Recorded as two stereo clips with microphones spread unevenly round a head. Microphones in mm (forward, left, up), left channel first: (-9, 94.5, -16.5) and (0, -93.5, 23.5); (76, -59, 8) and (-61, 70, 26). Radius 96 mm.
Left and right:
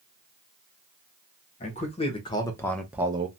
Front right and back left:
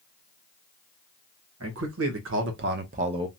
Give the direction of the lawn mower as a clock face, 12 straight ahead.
I don't hear a lawn mower.